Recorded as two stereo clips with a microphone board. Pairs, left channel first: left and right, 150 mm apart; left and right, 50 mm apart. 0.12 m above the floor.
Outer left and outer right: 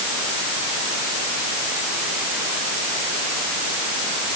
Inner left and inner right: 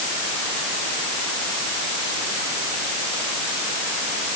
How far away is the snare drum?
No snare drum in this recording.